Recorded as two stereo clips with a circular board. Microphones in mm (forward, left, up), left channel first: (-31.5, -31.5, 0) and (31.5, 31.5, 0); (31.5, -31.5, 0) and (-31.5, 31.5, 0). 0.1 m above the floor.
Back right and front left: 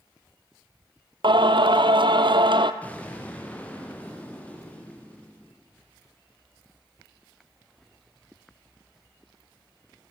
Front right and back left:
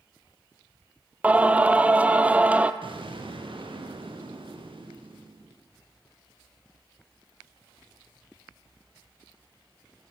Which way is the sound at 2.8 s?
150° left.